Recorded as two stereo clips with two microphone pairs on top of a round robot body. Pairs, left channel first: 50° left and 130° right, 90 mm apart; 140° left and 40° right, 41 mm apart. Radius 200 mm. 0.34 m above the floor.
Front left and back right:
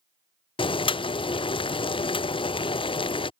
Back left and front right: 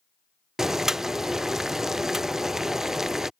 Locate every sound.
0.6 s boiling: 40° left